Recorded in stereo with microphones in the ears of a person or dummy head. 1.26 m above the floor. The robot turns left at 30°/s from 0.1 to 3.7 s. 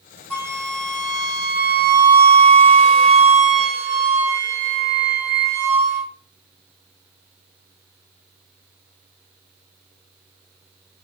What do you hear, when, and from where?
0.3 s a flute: 10° left, 1.0 m; by 6.1 s 90° right, 1.0 m